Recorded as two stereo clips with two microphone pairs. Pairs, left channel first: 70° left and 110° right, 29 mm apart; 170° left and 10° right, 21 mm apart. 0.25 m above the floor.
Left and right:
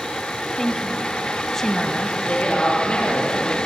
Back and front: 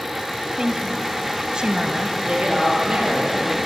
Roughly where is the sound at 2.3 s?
Ahead.